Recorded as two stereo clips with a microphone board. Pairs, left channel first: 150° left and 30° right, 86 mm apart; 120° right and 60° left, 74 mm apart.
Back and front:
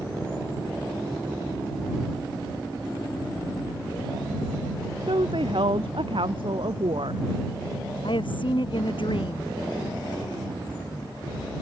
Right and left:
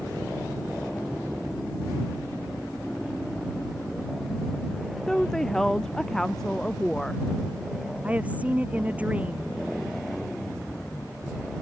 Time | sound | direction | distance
5.1 | a woman speaking | 35° right | ?
8.0 | a woman speaking | 130° left | ?